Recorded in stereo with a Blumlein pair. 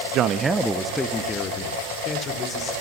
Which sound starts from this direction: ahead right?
A man speaking, at 0.1 s.